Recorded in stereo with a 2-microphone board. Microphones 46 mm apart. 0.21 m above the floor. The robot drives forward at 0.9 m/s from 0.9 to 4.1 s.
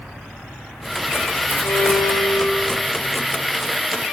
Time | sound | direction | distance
1.6 | a violin | 65° left (ahead or behind) | 8 m